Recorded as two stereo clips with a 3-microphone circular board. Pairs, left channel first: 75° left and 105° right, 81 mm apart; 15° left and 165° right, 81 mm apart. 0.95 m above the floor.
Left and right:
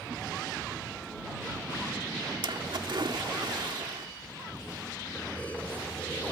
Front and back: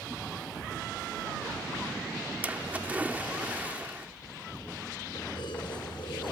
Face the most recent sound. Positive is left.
turn(degrees=5)